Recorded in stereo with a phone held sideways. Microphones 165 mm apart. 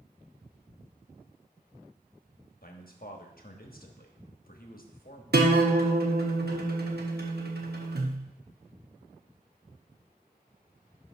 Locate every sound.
2.6 s a man speaking: 65° left (ahead or behind), 1.1 m
5.3 s a guitar: 75° right (ahead or behind), 1.0 m